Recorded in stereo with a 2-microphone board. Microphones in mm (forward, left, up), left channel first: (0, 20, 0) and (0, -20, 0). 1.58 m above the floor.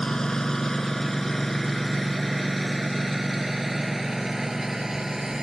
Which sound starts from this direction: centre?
A lawn mower, at 0.0 s.